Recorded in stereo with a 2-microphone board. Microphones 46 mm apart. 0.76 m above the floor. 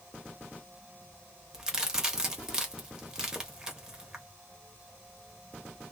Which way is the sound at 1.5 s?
15° right (ahead or behind).